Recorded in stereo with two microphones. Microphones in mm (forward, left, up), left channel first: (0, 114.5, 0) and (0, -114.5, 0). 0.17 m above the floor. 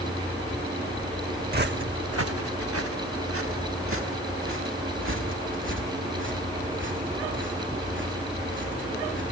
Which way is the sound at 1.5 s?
45° right (ahead or behind).